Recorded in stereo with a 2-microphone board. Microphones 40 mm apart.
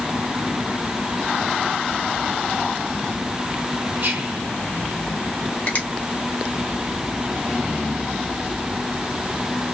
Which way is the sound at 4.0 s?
55° right (ahead or behind).